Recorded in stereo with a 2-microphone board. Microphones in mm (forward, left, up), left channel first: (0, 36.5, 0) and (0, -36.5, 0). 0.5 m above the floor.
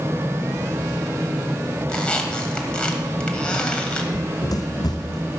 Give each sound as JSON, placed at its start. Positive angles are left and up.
{"t": 1.9, "sound": "a squeak", "side_deg": 15, "distance_m": 1.3}
{"t": 4.1, "sound": "running footsteps", "side_deg": 55, "distance_m": 0.8}